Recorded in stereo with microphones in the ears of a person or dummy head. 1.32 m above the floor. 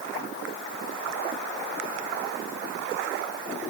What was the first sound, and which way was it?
Only background noise.